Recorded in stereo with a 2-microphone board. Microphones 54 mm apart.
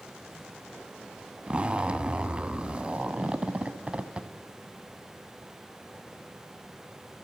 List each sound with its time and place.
1.5 s a zipper: 20° right (ahead or behind), 0.6 m